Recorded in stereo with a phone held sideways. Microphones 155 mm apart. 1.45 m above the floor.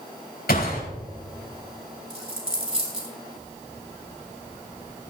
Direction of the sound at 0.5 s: 85° left.